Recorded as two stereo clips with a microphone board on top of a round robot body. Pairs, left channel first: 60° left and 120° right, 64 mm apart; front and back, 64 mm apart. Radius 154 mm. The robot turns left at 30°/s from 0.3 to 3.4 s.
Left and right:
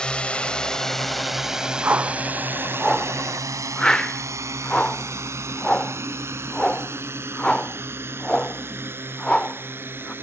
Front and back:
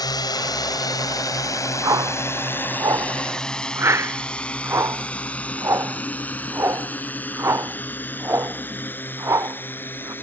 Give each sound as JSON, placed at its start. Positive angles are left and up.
{"t": 0.0, "sound": "a drone", "azimuth_deg": -20}
{"t": 1.8, "sound": "a whoosh", "azimuth_deg": -175}